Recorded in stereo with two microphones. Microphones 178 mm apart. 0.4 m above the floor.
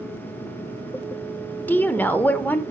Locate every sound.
1.7 s a woman speaking: 10° left (ahead or behind), 0.8 m